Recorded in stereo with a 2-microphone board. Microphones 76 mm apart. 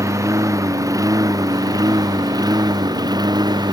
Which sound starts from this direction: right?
A lawn mower, at 0.0 s.